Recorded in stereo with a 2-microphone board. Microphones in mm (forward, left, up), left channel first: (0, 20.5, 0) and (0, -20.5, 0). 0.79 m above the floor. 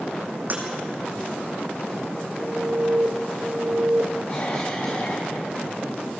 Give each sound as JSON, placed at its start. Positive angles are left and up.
{"t": 0.5, "sound": "breaking glass", "side_deg": -45, "distance_m": 4.0}
{"t": 2.4, "sound": "an alarm", "side_deg": -50, "distance_m": 2.5}
{"t": 4.3, "sound": "a cough", "side_deg": 40, "distance_m": 6.5}